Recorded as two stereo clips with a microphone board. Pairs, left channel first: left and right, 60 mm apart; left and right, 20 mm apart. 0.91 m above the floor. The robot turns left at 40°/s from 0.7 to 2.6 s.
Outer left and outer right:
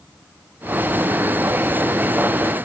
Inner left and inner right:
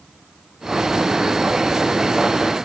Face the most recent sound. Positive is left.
No sound to turn to.